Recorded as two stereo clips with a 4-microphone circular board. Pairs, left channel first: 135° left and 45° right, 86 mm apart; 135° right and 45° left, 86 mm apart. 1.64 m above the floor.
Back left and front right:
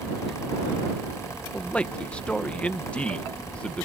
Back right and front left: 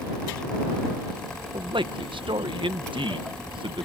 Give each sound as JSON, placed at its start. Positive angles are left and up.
{"t": 1.5, "sound": "a man speaking", "azimuth_deg": 60}